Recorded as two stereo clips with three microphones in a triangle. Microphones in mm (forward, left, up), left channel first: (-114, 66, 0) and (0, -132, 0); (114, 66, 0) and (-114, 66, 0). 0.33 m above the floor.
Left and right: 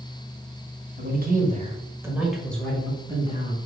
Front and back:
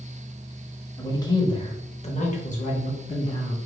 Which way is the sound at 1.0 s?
70° right.